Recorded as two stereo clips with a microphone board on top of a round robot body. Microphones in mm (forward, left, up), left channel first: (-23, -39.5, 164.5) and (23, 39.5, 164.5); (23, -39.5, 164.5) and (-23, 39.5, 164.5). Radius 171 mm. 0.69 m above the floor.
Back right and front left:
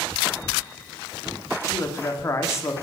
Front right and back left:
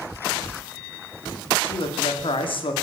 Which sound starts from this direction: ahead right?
A man speaking, at 1.6 s.